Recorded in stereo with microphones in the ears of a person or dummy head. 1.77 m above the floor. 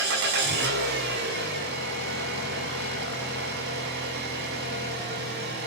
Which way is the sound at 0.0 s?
75° right (ahead or behind).